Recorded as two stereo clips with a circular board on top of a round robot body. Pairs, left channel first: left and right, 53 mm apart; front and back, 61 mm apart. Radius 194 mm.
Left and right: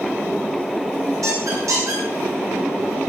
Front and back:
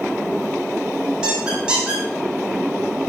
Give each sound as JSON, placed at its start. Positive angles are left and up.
{"t": 1.2, "sound": "a squeak", "azimuth_deg": -105, "distance_m": 3.5}